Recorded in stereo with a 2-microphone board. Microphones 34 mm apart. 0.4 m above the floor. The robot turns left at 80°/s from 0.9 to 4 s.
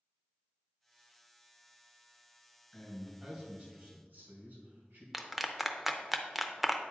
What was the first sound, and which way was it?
A man speaking, 25° left.